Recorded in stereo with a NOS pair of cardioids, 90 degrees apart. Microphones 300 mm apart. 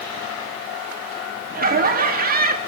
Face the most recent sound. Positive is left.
turn(degrees=-30)